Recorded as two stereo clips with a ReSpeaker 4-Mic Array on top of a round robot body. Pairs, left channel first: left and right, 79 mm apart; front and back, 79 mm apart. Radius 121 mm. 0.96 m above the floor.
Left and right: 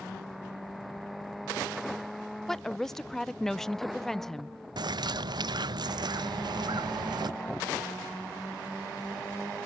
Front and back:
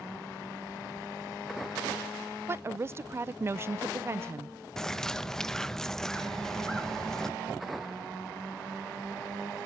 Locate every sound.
2.5 s a woman speaking: 170° left, 0.5 m
4.8 s a bird: 80° right, 0.9 m